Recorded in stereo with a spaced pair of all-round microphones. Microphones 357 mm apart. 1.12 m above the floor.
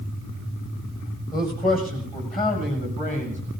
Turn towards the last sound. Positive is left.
turn(degrees=20)  # may be behind; listen again after turning